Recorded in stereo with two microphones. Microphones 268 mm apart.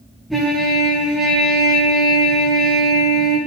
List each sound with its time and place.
0.3 s a trumpet: centre (ahead or behind), 5.5 m